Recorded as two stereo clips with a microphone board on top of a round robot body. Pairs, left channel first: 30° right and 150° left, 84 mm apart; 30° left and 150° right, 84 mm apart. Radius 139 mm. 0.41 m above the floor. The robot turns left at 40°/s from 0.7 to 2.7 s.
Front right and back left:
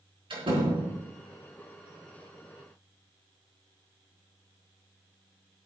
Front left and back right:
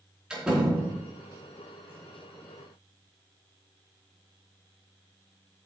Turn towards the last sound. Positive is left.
turn(degrees=50)